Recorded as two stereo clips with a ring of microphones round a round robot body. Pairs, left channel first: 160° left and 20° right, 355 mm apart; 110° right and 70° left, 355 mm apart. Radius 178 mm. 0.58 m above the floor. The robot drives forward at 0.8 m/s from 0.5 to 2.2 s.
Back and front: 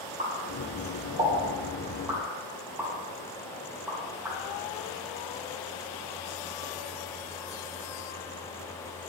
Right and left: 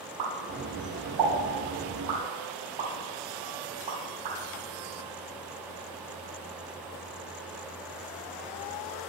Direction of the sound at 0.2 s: 50° left.